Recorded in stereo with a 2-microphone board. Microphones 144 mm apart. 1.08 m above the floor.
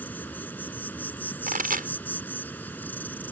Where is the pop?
80° right.